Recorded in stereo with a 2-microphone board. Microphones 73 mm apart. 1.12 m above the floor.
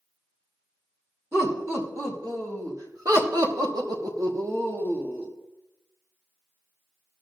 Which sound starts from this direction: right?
Laughter, at 1.3 s.